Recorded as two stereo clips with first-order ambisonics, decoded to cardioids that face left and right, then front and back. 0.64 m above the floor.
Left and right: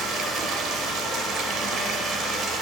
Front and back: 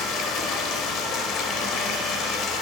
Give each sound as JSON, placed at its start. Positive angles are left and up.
{"t": 0.0, "sound": "running water", "azimuth_deg": -40, "distance_m": 1.2}